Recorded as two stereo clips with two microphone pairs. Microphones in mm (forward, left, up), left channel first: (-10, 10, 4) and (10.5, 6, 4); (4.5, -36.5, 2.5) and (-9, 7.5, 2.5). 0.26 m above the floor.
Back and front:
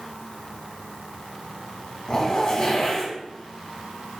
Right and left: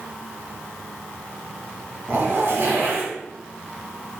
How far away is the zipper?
About 2 m.